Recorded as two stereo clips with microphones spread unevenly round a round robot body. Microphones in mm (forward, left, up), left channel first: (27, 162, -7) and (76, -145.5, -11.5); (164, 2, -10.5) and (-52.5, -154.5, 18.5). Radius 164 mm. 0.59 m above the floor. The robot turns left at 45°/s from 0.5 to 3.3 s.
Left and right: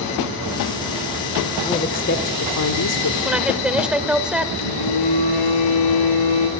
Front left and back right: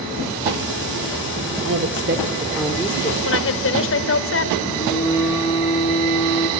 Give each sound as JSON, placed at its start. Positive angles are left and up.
{"t": 1.6, "sound": "a woman speaking", "azimuth_deg": 175, "distance_m": 1.8}
{"t": 3.2, "sound": "a woman speaking", "azimuth_deg": 10, "distance_m": 2.0}
{"t": 4.6, "sound": "a phone buzzing", "azimuth_deg": 110, "distance_m": 8.0}